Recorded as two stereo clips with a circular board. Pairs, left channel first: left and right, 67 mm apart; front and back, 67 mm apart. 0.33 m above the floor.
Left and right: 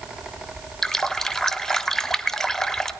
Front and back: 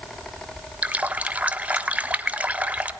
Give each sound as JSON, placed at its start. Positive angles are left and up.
{"t": 0.8, "sound": "a running tap", "azimuth_deg": 160, "distance_m": 0.6}